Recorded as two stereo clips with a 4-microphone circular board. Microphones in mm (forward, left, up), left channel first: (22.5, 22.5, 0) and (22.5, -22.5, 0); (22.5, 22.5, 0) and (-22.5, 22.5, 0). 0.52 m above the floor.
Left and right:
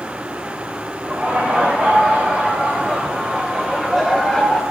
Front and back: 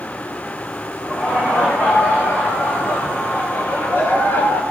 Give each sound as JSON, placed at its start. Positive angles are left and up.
{"t": 1.0, "sound": "laughter", "azimuth_deg": -35, "distance_m": 4.5}